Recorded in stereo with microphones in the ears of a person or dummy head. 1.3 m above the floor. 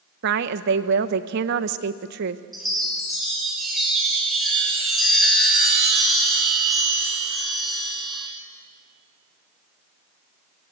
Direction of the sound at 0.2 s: 60° right (ahead or behind).